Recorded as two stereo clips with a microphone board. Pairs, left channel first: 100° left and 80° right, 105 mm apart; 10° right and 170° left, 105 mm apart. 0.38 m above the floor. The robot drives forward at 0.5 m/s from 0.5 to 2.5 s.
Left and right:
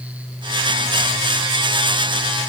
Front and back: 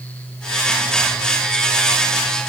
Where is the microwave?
No microwave in this recording.